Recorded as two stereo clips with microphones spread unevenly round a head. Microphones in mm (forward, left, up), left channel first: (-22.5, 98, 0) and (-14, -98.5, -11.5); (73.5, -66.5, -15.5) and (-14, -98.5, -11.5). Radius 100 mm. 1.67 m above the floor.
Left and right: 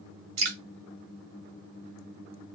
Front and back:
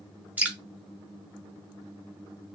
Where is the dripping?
85° right, 1.1 m.